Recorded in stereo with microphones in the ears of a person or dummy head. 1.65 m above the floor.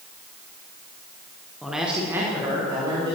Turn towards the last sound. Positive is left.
turn(degrees=-30)  # may be behind; listen again after turning